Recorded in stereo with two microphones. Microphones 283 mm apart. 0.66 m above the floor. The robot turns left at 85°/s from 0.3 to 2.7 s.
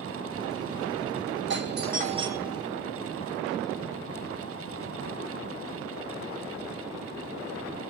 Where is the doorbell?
90° right, 1.1 m; by 2.6 s 170° left, 1.1 m.